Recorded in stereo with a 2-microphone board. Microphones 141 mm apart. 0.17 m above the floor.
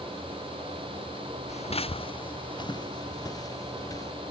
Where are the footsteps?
55° left (ahead or behind); by 4.1 s 25° left (ahead or behind).